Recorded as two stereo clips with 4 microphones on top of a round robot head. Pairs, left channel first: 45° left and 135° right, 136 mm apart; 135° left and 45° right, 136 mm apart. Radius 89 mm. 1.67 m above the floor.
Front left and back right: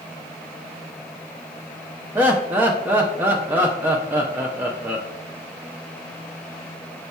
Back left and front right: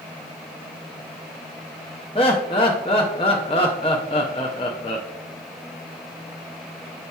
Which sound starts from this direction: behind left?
Laughter, at 2.1 s.